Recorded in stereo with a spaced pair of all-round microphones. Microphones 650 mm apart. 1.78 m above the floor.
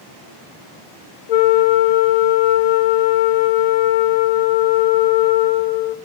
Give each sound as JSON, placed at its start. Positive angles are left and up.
{"t": 1.3, "sound": "a flute", "side_deg": 85, "distance_m": 0.5}